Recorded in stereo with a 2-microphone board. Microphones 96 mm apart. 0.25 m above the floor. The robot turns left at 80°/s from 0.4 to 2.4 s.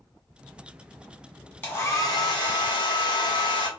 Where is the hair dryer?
155° left, 1.5 m; by 3.7 s 95° left, 1.5 m.